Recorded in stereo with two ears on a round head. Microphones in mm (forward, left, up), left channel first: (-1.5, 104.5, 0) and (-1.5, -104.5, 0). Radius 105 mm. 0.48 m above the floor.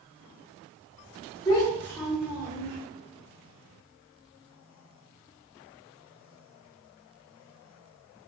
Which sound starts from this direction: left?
A child speaking, at 1.4 s.